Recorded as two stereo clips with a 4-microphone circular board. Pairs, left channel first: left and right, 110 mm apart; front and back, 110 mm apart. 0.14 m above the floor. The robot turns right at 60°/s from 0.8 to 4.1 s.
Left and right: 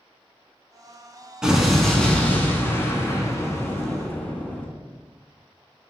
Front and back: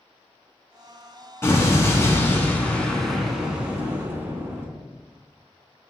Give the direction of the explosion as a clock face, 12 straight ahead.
1 o'clock.